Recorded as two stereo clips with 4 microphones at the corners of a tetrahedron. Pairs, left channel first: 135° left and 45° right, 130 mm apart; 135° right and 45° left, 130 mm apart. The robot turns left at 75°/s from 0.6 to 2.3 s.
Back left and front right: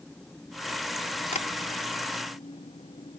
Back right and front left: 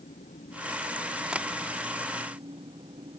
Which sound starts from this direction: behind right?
An engine running, at 0.0 s.